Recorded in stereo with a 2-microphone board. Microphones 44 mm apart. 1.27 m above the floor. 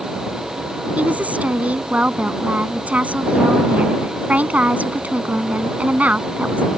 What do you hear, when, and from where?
1.0 s a woman speaking: 35° right (ahead or behind)